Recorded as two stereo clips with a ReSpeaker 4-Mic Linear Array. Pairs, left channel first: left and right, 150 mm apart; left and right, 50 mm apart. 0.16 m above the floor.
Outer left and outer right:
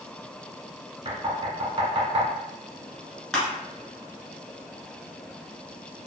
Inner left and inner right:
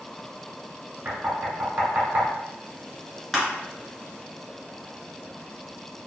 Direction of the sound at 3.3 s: Centre (ahead or behind).